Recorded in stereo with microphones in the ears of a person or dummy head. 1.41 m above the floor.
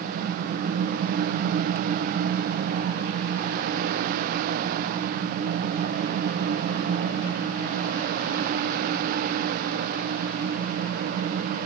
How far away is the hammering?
No hammering in this recording.